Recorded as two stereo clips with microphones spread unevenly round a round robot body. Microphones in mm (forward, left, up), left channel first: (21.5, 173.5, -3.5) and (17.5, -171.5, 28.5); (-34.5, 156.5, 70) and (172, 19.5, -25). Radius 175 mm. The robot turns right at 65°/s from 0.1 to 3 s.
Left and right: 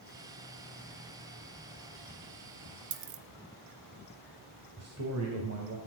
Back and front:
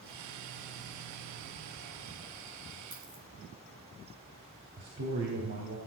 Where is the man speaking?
45° right, 3 m.